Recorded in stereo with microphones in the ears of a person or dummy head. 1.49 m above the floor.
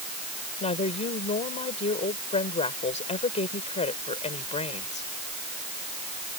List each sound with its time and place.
0.6 s a woman speaking: 30° left (ahead or behind)